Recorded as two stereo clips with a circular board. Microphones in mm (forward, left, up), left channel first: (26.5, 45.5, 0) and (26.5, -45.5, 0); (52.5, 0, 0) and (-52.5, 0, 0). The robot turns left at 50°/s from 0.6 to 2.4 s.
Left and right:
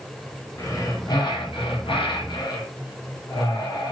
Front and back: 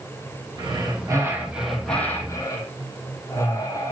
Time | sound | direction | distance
0.6 | breathing | 150° left | 2.5 m